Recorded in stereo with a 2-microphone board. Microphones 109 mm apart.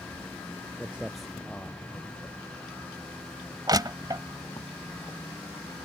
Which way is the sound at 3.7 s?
35° right (ahead or behind).